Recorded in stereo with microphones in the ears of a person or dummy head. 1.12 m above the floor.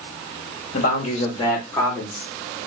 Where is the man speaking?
50° left (ahead or behind), 1.2 m; by 2.2 s 10° left (ahead or behind), 2.0 m.